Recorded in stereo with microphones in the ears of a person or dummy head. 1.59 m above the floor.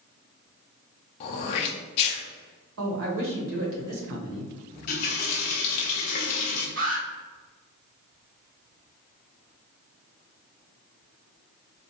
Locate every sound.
1.2 s throat clearing: 35° left (ahead or behind), 0.6 m
2.8 s a man speaking: 80° right, 1.4 m
4.7 s a running tap: 35° left (ahead or behind), 0.7 m
6.8 s an alarm: 45° right (ahead or behind), 1.9 m